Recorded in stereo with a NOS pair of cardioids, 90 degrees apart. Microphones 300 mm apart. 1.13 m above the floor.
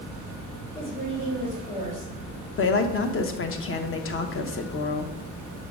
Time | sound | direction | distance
0.8 | a woman speaking | 65° left | 3.5 m
2.6 | a woman speaking | 45° left | 0.9 m